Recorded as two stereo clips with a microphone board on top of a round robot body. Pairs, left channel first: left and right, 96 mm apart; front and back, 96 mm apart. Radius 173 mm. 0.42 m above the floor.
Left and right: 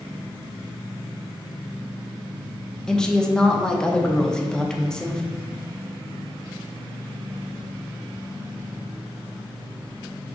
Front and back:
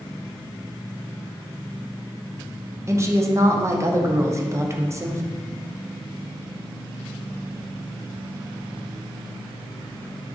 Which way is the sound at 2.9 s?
165° left.